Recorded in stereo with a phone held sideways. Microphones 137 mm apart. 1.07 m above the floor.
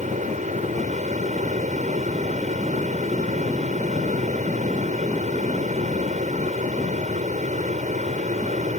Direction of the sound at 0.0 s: 70° right (ahead or behind).